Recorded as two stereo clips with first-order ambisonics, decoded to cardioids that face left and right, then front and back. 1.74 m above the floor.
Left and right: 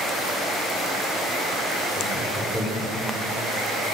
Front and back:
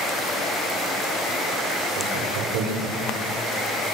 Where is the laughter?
175° left, 5 m.